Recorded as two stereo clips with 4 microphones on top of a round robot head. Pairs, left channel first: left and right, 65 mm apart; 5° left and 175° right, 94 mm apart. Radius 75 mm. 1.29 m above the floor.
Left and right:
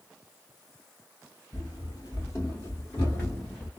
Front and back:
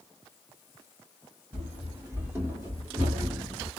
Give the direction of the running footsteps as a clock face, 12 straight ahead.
8 o'clock.